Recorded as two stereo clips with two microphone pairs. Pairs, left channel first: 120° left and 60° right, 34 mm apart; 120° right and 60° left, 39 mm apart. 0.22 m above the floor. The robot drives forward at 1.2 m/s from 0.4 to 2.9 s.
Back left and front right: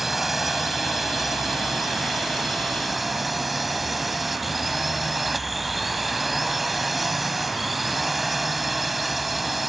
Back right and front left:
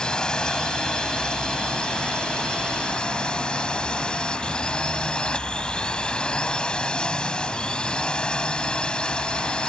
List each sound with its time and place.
0.0 s a drone: 130° right; by 9.7 s 145° right